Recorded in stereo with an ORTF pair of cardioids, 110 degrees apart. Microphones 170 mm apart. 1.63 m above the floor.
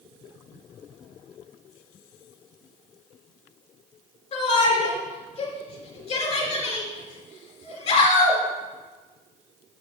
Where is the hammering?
I don't hear hammering.